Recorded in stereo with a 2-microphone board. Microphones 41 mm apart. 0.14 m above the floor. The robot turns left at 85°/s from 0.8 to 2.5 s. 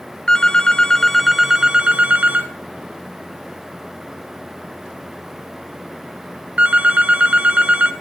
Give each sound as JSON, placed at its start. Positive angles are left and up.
{"t": 0.3, "sound": "a phone ringing", "side_deg": 25, "distance_m": 1.0}